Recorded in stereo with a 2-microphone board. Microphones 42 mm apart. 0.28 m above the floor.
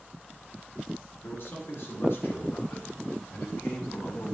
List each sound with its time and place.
1.2 s a man speaking: 65° left (ahead or behind), 5 m; by 4.3 s 40° left (ahead or behind), 2 m